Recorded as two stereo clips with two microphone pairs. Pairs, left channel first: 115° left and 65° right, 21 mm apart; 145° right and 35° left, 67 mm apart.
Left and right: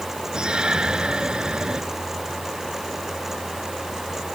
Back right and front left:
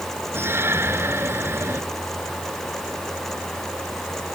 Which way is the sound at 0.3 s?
20° right.